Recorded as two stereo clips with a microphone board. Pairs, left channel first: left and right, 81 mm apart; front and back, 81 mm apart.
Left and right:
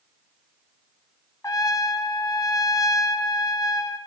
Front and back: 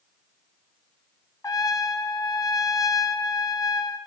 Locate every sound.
1.4 s a trumpet: 45° left, 0.5 m